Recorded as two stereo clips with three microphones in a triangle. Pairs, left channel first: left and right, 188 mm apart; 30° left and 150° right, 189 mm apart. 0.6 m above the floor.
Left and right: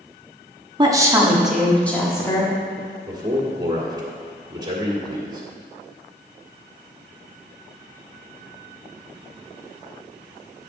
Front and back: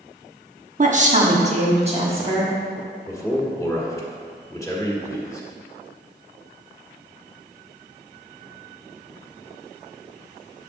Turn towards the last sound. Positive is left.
turn(degrees=-35)